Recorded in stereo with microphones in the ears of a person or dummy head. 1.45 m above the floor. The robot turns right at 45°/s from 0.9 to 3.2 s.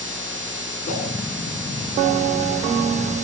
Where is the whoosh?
45° left (ahead or behind), 6 m; by 1.1 s 55° left (ahead or behind), 6 m.